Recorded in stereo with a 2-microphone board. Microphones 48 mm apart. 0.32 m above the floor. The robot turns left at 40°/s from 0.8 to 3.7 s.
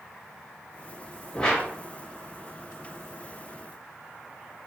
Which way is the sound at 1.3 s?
15° left (ahead or behind).